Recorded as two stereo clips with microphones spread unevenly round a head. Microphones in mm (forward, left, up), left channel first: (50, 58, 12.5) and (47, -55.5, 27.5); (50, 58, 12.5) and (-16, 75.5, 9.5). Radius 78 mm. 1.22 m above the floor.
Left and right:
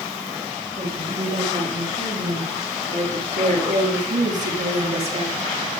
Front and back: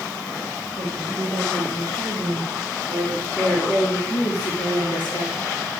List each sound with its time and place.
0.8 s a woman speaking: 135° right, 6.5 m; by 5.3 s 55° right, 3.5 m